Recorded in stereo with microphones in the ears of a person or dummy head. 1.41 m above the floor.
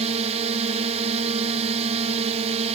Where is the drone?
35° right (ahead or behind).